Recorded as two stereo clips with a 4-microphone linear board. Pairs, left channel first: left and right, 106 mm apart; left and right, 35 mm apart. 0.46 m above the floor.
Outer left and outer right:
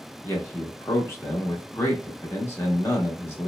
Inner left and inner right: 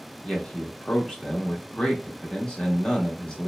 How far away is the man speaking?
About 0.8 m.